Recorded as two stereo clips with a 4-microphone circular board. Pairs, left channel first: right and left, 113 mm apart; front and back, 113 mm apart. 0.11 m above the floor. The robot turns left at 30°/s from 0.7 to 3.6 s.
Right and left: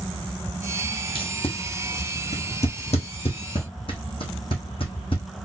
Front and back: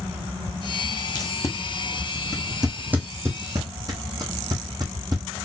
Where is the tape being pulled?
50° right, 1.1 m; by 5.2 s 125° right, 1.1 m.